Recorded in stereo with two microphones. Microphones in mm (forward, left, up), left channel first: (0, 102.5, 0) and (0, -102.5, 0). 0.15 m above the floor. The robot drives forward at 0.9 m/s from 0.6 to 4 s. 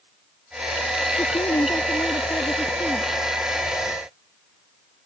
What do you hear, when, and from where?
1.2 s a woman speaking: 20° left (ahead or behind); by 3.1 s 10° left (ahead or behind)